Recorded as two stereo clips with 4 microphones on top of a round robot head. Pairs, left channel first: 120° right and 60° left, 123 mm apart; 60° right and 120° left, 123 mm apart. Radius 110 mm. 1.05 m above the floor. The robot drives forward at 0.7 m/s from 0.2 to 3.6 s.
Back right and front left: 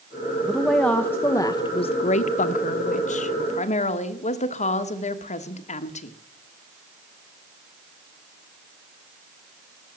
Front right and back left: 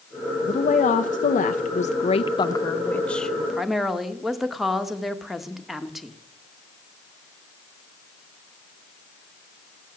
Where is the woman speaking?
30° right, 1.3 m; by 6.2 s 150° right, 1.3 m.